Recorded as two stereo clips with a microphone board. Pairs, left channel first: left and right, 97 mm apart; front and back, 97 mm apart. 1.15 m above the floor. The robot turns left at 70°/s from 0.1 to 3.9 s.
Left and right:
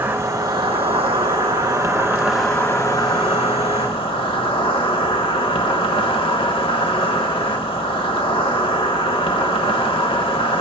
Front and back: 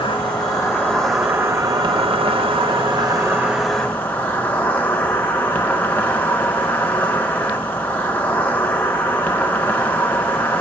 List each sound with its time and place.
0.0 s an insect: 20° right, 0.8 m; by 10.6 s 75° left, 0.8 m